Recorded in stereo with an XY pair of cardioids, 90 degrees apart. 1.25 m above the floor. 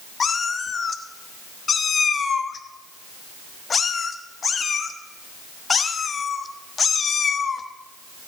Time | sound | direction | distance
0.2 | a cat meowing | 45° left | 1.2 m